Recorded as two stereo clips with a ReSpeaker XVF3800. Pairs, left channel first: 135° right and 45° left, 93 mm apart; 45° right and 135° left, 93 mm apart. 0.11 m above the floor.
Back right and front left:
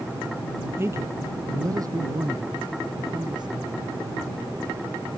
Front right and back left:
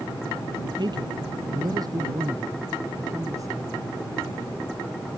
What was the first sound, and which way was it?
A man speaking, 105° left.